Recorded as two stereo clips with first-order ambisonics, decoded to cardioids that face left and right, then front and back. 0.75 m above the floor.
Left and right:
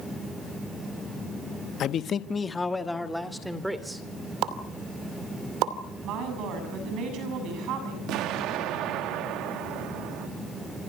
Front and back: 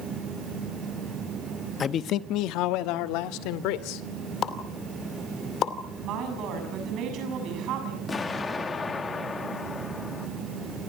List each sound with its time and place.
1.8 s a man speaking: 55° left, 0.8 m; by 4.0 s 5° right, 2.5 m
4.4 s a pop: 55° right, 2.5 m
6.0 s a woman speaking: 135° right, 7 m
8.1 s an explosion: 70° right, 1.6 m